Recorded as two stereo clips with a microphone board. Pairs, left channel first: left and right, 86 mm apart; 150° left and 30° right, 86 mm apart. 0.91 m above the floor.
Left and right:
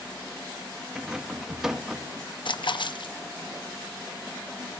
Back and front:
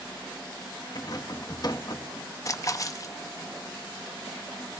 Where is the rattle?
175° right, 0.8 m.